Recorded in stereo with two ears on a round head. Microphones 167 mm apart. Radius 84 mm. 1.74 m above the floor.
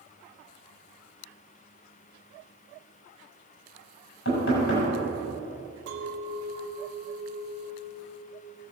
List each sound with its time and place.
4.2 s knocking: 80° left, 6 m
5.9 s a clink: 65° right (ahead or behind), 1.7 m